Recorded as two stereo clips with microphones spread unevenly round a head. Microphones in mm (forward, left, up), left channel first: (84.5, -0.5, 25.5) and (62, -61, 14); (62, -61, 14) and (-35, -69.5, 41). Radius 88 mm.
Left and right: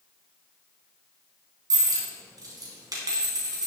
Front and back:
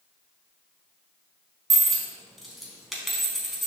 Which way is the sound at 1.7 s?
90° right.